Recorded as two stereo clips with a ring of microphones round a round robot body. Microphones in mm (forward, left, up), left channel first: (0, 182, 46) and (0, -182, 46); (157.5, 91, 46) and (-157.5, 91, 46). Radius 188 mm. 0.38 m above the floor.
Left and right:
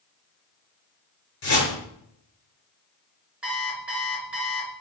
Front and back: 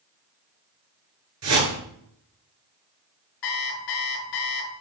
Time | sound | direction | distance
1.4 | a whoosh | 140° left | 5.5 m
3.4 | an alarm clock | 5° right | 3 m